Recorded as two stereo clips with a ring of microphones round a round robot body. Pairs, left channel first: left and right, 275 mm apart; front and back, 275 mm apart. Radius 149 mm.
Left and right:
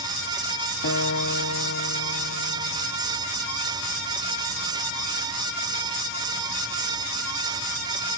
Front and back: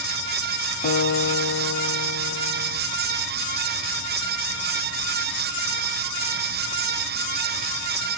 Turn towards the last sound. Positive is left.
turn(degrees=55)